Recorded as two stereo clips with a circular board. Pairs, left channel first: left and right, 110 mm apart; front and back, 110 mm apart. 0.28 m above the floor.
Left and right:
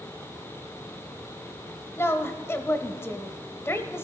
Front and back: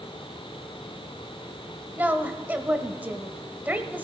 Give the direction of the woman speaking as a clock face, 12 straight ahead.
8 o'clock.